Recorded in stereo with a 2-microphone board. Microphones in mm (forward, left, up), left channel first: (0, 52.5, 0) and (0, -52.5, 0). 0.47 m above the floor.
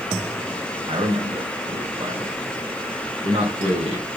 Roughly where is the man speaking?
Right.